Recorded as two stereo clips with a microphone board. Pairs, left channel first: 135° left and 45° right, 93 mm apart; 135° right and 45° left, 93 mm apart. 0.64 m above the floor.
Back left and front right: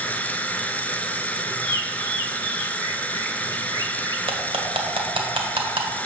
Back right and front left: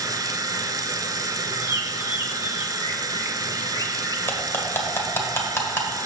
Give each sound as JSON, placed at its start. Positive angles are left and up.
{"t": 0.0, "sound": "running water", "azimuth_deg": 65, "distance_m": 0.7}
{"t": 1.6, "sound": "a bird", "azimuth_deg": -85, "distance_m": 1.1}
{"t": 4.3, "sound": "cutlery clinking", "azimuth_deg": -70, "distance_m": 1.5}